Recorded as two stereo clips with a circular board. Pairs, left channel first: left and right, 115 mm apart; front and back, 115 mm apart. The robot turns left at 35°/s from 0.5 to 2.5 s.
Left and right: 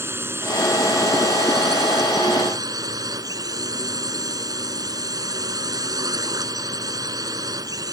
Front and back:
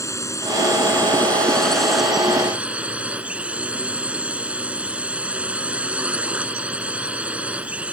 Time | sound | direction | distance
0.0 | a drone | 40° right | ?